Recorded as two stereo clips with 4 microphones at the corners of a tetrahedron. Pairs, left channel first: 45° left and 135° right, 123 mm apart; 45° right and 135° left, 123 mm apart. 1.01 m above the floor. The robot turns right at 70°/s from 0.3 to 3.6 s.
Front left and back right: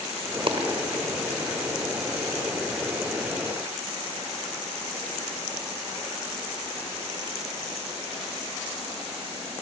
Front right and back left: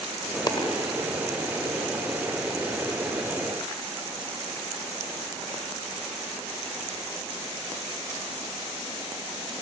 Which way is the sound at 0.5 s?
100° right.